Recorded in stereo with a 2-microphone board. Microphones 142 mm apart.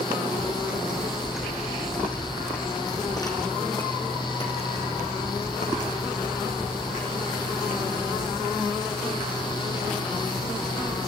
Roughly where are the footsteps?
Centre.